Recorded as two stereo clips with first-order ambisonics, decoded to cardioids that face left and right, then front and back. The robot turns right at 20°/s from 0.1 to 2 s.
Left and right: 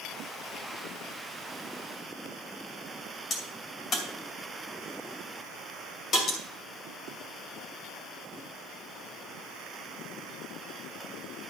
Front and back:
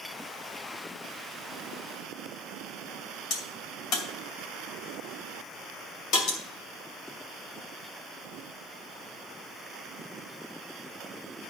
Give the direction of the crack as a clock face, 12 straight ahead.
11 o'clock.